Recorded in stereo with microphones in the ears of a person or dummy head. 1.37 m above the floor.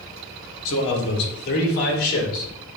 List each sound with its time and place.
0.7 s a man speaking: 70° left (ahead or behind), 1.2 m; by 2.5 s 50° left (ahead or behind), 2.5 m